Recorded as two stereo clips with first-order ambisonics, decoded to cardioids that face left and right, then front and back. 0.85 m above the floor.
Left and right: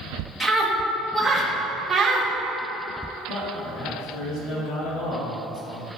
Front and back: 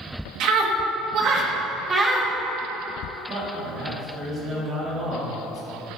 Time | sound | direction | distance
0.4 | a scream | 175° left | 1.5 m
3.3 | a man speaking | 125° left | 1.7 m